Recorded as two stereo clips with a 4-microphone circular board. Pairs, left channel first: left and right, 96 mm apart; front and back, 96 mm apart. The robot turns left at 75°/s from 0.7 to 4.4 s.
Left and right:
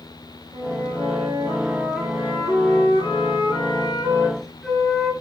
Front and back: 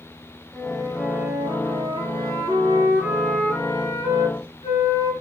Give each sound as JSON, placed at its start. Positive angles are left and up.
{"t": 0.5, "sound": "a flute", "azimuth_deg": -80, "distance_m": 4.0}